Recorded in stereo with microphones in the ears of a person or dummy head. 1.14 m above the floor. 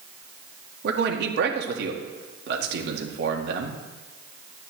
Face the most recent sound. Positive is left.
turn(degrees=-70)  # may be behind; listen again after turning